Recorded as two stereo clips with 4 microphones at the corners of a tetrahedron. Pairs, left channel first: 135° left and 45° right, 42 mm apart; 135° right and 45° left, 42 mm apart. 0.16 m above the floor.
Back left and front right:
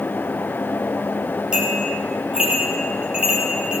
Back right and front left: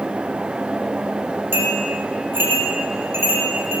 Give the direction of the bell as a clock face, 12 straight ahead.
11 o'clock.